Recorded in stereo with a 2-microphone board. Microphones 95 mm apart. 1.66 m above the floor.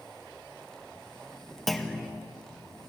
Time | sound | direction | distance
1.7 | a clunk | centre (ahead or behind) | 1.9 m